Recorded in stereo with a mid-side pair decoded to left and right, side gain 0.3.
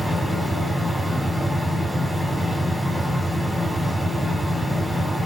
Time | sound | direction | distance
0.0 | a fan | straight ahead | 1.5 m